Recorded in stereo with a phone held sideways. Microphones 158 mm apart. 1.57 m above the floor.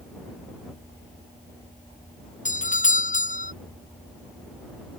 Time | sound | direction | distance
2.5 | a doorbell | 50° left (ahead or behind) | ?